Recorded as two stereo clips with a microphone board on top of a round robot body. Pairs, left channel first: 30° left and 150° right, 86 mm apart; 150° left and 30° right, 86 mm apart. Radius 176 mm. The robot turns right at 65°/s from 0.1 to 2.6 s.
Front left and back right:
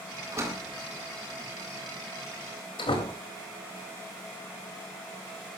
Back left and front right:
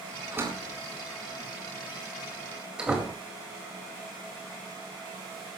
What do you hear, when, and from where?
0.3 s a door slam: 100° right, 4 m; by 3.2 s 50° left, 4 m